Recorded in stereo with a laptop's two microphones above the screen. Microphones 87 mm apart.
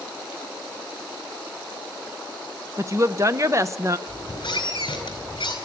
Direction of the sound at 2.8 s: 35° right (ahead or behind).